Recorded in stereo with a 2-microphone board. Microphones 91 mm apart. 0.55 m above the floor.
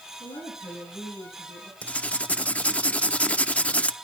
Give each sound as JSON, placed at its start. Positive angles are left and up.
{"t": 0.2, "sound": "a woman speaking", "side_deg": 80, "distance_m": 7.0}
{"t": 1.8, "sound": "writing", "side_deg": 15, "distance_m": 0.8}